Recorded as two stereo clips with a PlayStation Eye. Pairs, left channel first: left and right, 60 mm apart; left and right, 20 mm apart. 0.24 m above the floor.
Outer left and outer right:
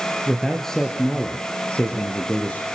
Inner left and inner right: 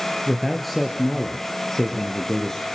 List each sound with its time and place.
0.3 s a man speaking: centre (ahead or behind), 4 m; by 2.7 s 30° left (ahead or behind), 5.5 m